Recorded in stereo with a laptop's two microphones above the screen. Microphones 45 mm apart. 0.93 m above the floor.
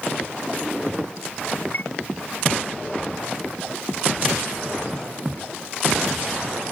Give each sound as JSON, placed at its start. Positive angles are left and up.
{"t": 1.7, "sound": "a chime", "side_deg": 50}